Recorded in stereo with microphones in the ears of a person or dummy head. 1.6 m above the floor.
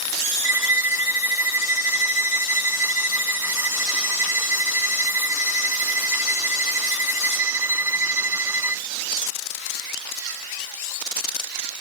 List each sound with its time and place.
0.4 s a violin: 5° right (ahead or behind)